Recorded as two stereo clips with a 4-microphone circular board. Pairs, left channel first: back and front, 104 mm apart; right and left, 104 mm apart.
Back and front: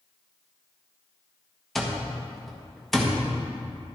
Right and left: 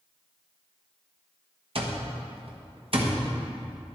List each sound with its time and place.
1.8 s an alarm clock: 95° left, 1.3 m